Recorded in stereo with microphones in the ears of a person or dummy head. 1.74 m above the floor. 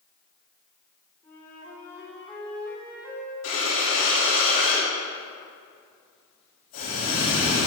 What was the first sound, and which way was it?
A flute, 15° left (ahead or behind).